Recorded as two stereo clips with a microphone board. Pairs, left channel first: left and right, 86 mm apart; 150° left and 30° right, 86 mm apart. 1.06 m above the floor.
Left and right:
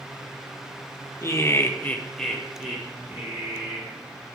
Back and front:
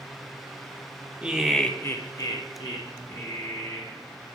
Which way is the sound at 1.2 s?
45° left.